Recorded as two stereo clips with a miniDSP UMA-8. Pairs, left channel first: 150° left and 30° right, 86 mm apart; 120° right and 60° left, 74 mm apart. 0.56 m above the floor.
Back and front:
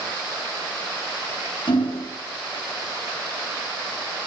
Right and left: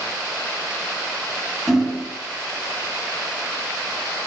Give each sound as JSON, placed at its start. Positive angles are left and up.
{"t": 1.7, "sound": "hammering", "azimuth_deg": 150, "distance_m": 4.0}